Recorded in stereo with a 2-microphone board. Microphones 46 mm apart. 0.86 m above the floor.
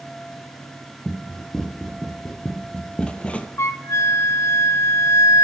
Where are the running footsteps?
10° left (ahead or behind), 2.0 m; by 3.5 s 30° left (ahead or behind), 1.1 m.